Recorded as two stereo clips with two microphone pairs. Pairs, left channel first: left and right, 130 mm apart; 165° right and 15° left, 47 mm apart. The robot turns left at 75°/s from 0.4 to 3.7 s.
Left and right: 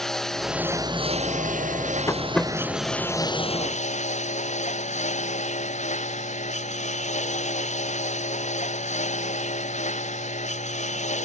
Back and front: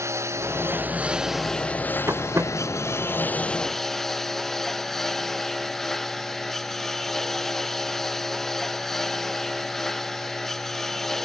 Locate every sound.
0.0 s a lawn mower: straight ahead; by 11.3 s 115° left
2.1 s tapping: 25° left; by 2.5 s 5° right